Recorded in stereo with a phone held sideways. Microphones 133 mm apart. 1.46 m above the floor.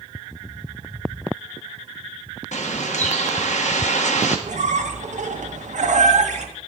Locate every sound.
2.5 s a bird: 65° left (ahead or behind), 1.3 m
4.5 s a squeak: 70° right (ahead or behind), 1.1 m